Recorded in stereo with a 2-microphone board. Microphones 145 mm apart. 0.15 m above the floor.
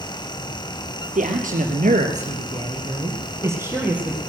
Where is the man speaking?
65° right (ahead or behind), 2.5 m; by 4.2 s 5° right (ahead or behind), 3.5 m.